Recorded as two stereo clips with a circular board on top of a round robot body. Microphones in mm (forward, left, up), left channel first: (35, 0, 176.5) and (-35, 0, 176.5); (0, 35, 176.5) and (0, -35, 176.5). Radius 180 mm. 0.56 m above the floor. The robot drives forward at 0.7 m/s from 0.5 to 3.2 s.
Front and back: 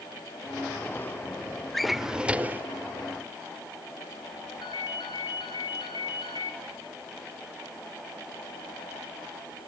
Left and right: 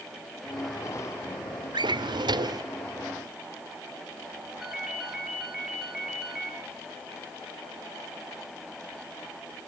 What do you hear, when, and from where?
1.7 s a drawer: 85° right, 1.2 m; by 2.7 s 115° right, 1.3 m
4.6 s a ringtone: 5° right, 5.5 m